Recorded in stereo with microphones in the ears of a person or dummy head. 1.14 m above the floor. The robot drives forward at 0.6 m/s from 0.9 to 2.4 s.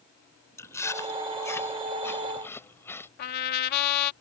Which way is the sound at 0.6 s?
15° left (ahead or behind).